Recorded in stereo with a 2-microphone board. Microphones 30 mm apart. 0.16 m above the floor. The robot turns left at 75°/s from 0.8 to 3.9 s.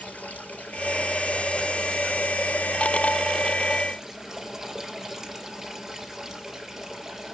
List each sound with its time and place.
0.0 s running water: 75° left, 3 m; by 7.3 s 160° right, 3 m